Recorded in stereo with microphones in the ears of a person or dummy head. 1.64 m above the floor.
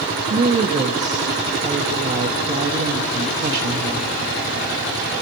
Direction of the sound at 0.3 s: 40° right (ahead or behind).